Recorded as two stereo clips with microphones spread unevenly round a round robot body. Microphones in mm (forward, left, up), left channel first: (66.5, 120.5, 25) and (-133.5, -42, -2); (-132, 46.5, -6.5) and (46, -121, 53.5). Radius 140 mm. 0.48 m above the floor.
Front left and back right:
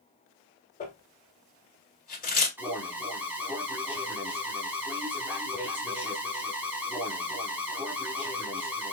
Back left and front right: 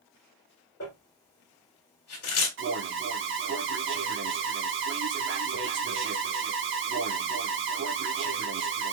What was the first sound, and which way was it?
Crumpling, 95° left.